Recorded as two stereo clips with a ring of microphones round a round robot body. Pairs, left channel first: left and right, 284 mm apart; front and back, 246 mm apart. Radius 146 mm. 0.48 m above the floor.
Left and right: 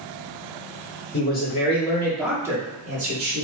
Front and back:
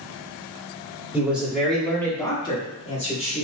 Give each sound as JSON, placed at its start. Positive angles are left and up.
{"t": 1.1, "sound": "a man speaking", "azimuth_deg": 105, "distance_m": 1.3}